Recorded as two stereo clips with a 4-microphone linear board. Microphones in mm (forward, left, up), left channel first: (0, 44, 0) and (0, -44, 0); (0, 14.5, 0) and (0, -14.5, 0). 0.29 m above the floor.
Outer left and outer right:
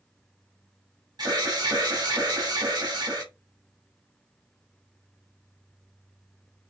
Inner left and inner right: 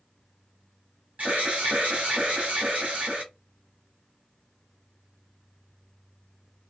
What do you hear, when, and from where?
1.2 s an alarm: 50° right (ahead or behind), 1.2 m